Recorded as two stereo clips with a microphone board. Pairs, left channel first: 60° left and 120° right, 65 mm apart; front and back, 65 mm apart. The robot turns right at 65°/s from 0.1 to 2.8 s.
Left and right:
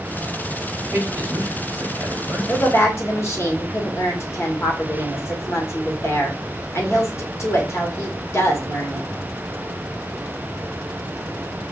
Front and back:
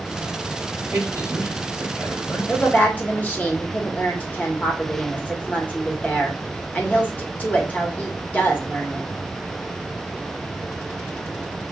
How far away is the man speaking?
About 2 m.